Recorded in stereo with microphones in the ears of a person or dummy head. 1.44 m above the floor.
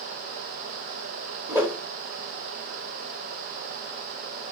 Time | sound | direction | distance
1.5 | a whoosh | 15° right (ahead or behind) | 0.6 m